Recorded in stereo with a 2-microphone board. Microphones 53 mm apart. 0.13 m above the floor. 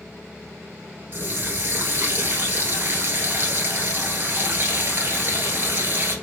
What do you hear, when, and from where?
1.1 s a running tap: 45° right (ahead or behind), 1.3 m